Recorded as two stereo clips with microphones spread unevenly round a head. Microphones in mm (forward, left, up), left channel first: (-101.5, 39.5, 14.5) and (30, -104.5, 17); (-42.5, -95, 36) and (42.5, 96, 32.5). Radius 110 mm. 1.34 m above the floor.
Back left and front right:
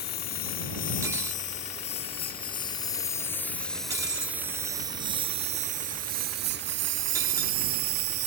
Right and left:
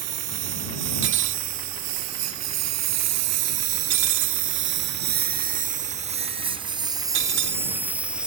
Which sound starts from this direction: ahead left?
Cutlery clinking, at 1.0 s.